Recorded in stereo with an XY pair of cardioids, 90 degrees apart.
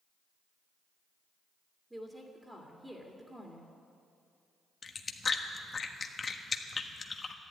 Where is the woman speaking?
15° right, 2.5 m.